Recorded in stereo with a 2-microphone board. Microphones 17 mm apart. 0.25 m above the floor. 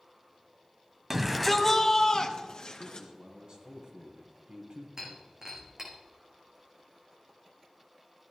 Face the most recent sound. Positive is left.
turn(degrees=-20)  # may be behind; listen again after turning